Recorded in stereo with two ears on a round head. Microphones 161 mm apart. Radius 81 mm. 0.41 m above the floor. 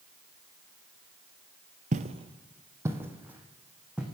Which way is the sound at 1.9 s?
45° right (ahead or behind).